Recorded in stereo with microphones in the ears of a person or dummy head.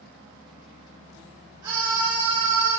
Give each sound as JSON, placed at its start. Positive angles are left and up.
{"t": 1.6, "sound": "a scream", "side_deg": -25, "distance_m": 2.0}